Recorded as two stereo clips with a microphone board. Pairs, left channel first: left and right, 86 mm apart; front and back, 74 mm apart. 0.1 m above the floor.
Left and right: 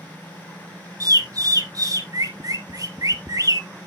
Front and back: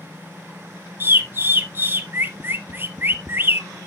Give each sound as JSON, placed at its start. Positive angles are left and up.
{"t": 1.0, "sound": "a bird", "azimuth_deg": -125, "distance_m": 1.0}